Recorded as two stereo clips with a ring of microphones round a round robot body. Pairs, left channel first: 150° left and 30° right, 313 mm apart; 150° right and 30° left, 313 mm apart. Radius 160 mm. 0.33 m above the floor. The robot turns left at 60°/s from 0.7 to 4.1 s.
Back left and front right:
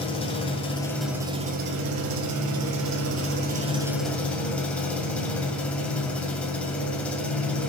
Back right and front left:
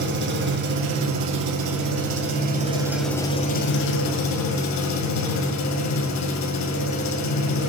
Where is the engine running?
80° left, 1.7 m; by 7.7 s 125° right, 1.7 m.